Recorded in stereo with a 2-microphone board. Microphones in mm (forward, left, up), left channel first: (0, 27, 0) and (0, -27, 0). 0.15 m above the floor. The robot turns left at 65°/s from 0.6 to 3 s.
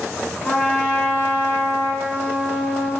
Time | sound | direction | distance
0.4 | a trumpet | 5° left | 1.9 m